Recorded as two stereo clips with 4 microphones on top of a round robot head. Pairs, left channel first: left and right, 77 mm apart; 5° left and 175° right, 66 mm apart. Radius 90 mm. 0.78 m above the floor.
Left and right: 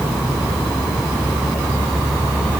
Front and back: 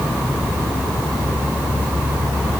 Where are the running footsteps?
I don't hear running footsteps.